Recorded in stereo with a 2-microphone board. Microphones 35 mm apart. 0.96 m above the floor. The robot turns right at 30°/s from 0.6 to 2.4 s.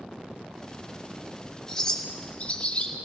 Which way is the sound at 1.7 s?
15° left (ahead or behind).